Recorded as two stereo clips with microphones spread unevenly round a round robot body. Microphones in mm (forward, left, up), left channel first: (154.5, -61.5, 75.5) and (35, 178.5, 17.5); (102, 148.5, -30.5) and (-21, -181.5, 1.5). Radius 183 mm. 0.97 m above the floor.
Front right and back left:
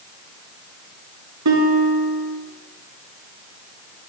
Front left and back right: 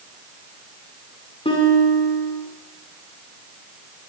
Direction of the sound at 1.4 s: 145° left.